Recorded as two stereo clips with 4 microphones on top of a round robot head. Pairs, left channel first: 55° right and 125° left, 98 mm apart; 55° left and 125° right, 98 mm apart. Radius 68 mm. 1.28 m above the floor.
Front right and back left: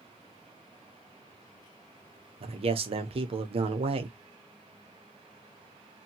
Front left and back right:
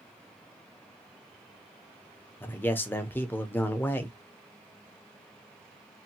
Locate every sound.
2.4 s a man speaking: 125° left, 0.8 m